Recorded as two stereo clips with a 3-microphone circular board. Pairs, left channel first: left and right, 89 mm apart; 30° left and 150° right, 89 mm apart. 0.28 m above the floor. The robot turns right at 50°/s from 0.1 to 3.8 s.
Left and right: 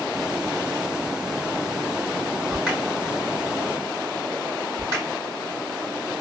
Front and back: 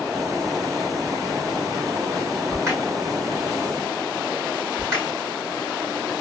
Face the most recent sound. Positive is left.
turn(degrees=-100)